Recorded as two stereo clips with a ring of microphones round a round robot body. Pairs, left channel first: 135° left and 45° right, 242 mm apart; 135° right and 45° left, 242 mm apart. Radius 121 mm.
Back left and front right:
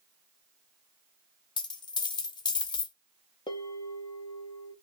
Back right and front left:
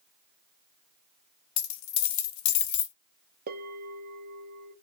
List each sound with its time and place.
1.6 s a dropped coin: 150° right, 0.6 m
3.5 s a bell: 70° left, 0.6 m